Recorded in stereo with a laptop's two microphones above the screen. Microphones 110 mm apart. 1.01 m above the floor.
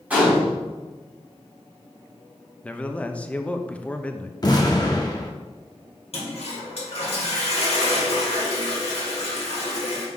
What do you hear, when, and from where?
0.1 s a gunshot: 15° right (ahead or behind), 3 m
2.6 s a man speaking: 10° left (ahead or behind), 0.6 m
4.4 s an explosion: 35° left (ahead or behind), 0.7 m
6.1 s a toilet flushing: 65° left (ahead or behind), 1.9 m